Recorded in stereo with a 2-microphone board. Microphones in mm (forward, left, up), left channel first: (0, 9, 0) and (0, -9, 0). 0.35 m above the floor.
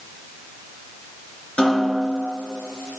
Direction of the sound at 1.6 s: 65° left (ahead or behind).